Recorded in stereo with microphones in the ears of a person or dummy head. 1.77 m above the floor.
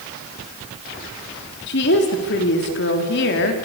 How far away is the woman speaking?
About 4 m.